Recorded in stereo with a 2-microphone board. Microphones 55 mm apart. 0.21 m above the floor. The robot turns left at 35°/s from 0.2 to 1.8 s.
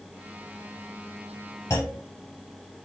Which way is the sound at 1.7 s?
70° left (ahead or behind).